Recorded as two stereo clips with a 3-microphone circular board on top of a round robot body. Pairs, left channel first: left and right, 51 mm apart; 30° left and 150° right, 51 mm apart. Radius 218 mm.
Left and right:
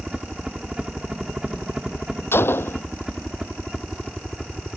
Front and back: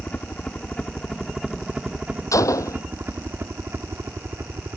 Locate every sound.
0.0 s a helicopter: 20° right; by 4.8 s straight behind
2.3 s a gunshot: 45° left